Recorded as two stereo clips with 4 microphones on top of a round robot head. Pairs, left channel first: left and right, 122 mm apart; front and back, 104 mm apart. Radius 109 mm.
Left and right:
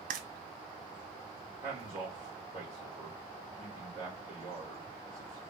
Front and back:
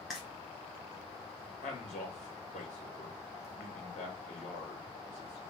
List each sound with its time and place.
0.1 s frying: 90° right, 0.6 m
1.6 s a man speaking: 20° right, 2 m